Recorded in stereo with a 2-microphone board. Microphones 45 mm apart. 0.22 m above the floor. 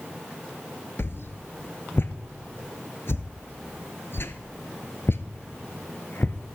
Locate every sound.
1.0 s a whoosh: 65° left (ahead or behind), 0.8 m